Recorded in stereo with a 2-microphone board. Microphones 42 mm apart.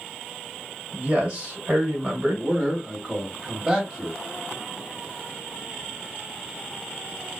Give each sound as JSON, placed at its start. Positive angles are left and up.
{"t": 0.9, "sound": "a man speaking", "side_deg": -25, "distance_m": 1.5}
{"t": 2.4, "sound": "a man speaking", "side_deg": -15, "distance_m": 1.4}